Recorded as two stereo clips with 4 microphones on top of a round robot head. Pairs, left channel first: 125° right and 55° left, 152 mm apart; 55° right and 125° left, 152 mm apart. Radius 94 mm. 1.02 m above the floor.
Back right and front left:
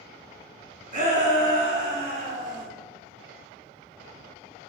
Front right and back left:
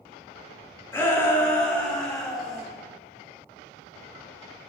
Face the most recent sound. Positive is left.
turn(degrees=35)